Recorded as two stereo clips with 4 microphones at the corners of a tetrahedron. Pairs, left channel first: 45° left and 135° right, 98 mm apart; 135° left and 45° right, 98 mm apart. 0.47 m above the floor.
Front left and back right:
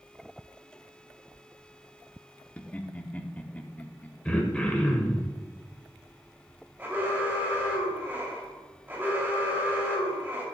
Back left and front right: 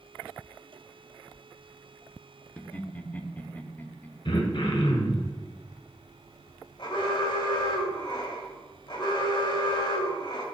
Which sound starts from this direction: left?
Laughter, at 2.6 s.